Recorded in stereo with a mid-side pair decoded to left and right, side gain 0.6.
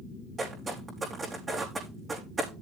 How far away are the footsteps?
About 5.5 m.